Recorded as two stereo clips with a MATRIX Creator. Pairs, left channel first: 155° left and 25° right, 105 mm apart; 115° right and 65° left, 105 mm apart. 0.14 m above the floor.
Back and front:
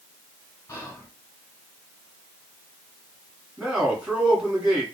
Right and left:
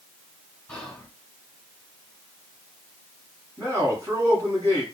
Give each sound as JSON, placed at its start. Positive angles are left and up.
{"t": 0.7, "sound": "whispering", "azimuth_deg": 160, "distance_m": 1.3}
{"t": 3.6, "sound": "a man speaking", "azimuth_deg": 45, "distance_m": 1.4}